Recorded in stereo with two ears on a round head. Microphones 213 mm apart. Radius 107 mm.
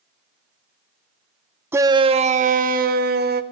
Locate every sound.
1.7 s a shout: 10° right (ahead or behind), 0.6 m; by 3.4 s 40° right (ahead or behind), 1.8 m